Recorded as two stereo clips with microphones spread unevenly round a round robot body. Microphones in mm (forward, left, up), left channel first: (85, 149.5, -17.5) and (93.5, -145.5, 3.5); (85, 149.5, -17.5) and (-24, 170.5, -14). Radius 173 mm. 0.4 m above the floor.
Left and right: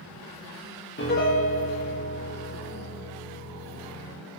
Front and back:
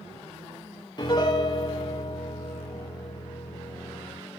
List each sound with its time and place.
1.0 s a piano: 35° left, 8.5 m